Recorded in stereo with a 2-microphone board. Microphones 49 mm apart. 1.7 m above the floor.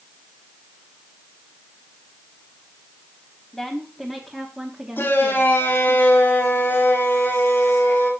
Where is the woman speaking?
Centre (ahead or behind), 2 m; by 6.0 s 35° right (ahead or behind), 3.5 m.